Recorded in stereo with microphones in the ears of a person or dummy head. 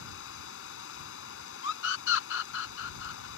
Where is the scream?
70° left (ahead or behind).